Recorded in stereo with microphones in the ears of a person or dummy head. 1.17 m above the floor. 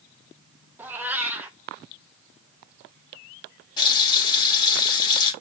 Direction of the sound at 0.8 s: 10° right (ahead or behind).